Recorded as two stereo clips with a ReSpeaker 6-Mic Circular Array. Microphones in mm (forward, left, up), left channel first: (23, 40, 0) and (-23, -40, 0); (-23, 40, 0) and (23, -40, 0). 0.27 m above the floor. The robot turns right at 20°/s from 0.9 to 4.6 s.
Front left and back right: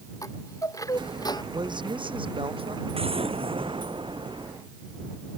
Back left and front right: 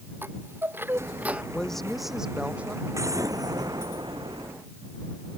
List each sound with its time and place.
0.2 s a chime: 5° left; by 1.4 s 15° left
1.5 s a woman speaking: 160° right; by 2.8 s 130° right
2.9 s an explosion: 115° right; by 4.5 s 85° right